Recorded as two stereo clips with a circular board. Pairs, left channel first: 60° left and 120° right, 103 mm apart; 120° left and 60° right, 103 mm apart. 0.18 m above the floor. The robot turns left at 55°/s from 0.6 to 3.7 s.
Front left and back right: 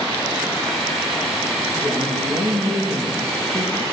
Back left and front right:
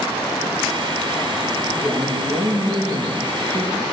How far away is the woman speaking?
About 8 m.